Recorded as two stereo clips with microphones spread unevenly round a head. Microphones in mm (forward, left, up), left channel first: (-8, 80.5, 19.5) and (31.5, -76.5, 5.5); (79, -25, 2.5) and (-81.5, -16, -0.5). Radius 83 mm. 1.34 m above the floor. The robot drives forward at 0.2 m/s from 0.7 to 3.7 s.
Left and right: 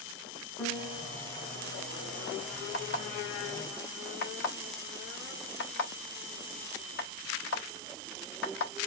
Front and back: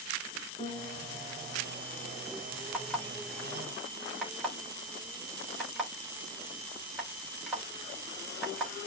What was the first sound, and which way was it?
A piano, 45° left.